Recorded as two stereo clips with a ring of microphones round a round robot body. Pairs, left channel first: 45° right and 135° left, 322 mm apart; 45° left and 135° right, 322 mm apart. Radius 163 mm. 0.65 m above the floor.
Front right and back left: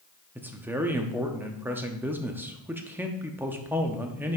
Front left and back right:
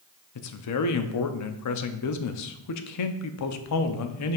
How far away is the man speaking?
About 0.7 m.